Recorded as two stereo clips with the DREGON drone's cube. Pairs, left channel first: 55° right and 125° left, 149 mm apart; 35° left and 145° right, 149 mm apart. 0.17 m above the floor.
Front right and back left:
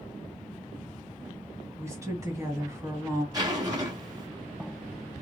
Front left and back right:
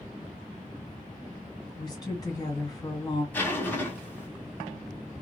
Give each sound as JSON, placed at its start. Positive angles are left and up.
{"t": 1.8, "sound": "a woman speaking", "azimuth_deg": 75, "distance_m": 1.6}
{"t": 3.3, "sound": "a zipper", "azimuth_deg": 100, "distance_m": 1.1}